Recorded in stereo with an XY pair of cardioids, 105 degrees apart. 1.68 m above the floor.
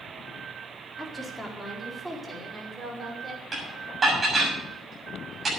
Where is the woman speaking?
5° left, 4 m; by 3.4 s 30° right, 6 m.